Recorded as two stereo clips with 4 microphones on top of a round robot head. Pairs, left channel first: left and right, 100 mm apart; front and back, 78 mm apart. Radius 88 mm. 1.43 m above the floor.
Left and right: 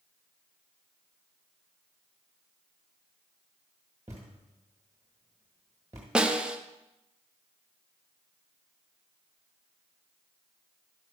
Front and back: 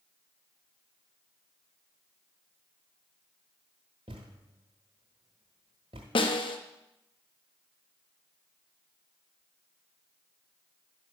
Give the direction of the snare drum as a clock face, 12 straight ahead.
12 o'clock.